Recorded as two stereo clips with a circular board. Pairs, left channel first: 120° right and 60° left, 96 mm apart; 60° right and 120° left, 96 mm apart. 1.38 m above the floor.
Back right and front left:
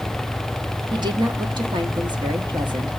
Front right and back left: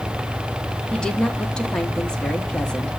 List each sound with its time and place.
0.9 s a woman speaking: 20° left, 1.1 m